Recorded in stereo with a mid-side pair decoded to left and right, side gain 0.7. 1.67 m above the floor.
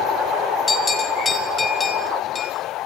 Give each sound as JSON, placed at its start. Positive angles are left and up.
{"t": 0.7, "sound": "a bell", "azimuth_deg": 25, "distance_m": 6.5}